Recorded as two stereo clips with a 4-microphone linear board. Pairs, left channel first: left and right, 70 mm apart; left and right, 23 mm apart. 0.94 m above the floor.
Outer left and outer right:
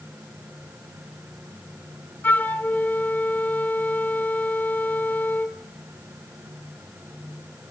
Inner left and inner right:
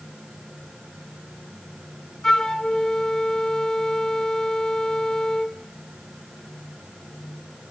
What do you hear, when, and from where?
2.2 s a flute: 25° left (ahead or behind), 1.3 m